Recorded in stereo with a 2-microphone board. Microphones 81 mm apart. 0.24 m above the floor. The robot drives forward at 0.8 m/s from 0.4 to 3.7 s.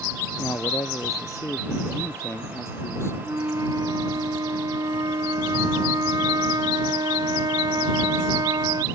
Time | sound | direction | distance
0.4 | a man speaking | 45° left (ahead or behind) | ?
3.2 | a flute | 45° right (ahead or behind) | ?